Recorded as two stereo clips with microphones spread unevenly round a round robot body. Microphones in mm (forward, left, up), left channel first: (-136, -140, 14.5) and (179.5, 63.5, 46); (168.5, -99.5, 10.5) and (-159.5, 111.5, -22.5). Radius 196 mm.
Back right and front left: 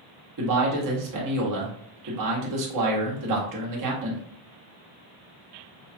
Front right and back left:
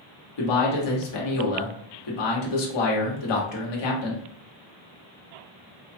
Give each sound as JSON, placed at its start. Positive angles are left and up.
{"t": 0.4, "sound": "a man speaking", "azimuth_deg": -5, "distance_m": 1.4}